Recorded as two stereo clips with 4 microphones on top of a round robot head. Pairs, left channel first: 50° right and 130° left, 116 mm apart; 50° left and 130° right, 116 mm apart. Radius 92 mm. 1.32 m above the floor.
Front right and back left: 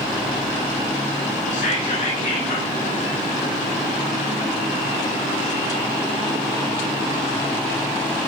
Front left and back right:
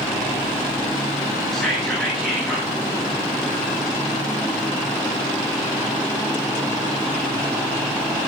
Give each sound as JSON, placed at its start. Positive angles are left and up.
{"t": 1.5, "sound": "whispering", "azimuth_deg": -40, "distance_m": 8.5}